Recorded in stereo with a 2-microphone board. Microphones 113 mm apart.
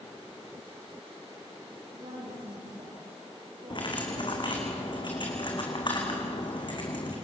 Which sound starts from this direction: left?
Cutlery clinking, at 3.7 s.